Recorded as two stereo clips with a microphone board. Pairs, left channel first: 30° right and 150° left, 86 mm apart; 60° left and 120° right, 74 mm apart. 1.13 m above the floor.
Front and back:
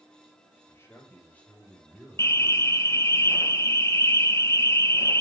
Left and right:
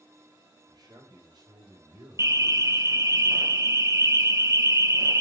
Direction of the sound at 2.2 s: 80° right.